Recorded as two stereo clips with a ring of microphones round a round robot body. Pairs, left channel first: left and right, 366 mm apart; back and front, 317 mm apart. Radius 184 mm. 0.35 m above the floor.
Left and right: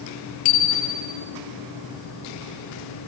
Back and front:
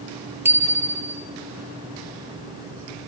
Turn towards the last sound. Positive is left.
turn(degrees=85)